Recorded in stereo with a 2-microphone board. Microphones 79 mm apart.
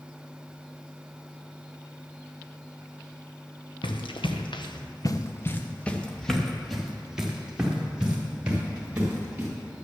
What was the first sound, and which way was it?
Running footsteps, 80° left.